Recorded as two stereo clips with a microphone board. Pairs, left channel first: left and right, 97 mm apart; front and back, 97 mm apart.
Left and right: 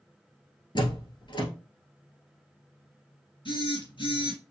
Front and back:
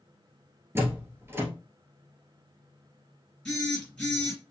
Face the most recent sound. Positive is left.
turn(degrees=85)